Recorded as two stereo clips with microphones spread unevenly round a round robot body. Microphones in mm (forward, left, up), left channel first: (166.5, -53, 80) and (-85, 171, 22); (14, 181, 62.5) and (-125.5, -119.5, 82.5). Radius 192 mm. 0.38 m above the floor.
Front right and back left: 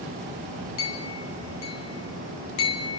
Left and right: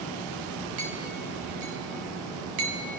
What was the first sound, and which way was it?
A clink, 95° right.